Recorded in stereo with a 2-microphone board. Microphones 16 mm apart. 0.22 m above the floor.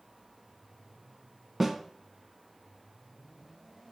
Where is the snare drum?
15° right (ahead or behind), 1.8 m.